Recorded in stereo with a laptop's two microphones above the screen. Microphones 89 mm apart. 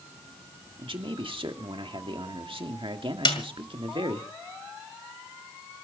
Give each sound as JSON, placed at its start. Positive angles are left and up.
{"t": 0.8, "sound": "a man speaking", "side_deg": -75, "distance_m": 1.8}
{"t": 3.2, "sound": "a snare drum", "side_deg": 60, "distance_m": 2.0}